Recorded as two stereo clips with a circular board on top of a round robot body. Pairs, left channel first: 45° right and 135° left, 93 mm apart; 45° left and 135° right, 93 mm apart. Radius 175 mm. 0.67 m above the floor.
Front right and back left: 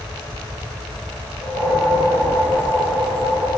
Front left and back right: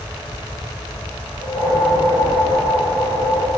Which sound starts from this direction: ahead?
A whoosh, at 1.4 s.